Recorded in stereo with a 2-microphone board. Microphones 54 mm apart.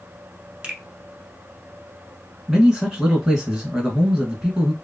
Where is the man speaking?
15° right (ahead or behind), 1.4 m.